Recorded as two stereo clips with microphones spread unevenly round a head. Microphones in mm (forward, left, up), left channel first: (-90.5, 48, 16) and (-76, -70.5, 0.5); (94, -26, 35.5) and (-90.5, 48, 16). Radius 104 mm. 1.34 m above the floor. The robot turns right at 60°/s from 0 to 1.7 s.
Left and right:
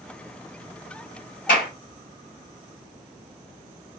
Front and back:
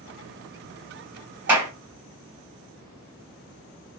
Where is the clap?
75° left, 1.4 m; by 1.7 s 90° left, 1.4 m.